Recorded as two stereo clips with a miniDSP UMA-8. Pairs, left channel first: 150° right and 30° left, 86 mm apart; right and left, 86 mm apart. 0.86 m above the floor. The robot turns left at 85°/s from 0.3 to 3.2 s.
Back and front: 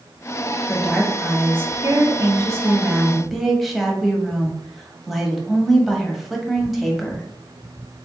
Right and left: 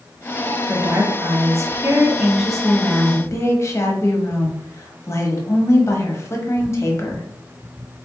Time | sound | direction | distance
0.7 | a woman speaking | 155° left | 1.2 m